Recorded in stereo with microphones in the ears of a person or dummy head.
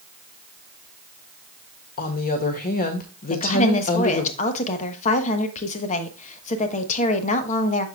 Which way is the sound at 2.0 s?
40° left (ahead or behind).